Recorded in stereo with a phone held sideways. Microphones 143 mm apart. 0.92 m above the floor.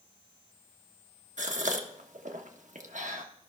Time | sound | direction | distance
1.4 | a gasp | 60° right (ahead or behind) | 0.9 m